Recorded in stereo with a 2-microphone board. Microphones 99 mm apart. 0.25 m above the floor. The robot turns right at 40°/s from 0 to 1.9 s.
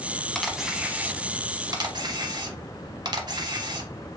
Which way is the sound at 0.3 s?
5° left (ahead or behind).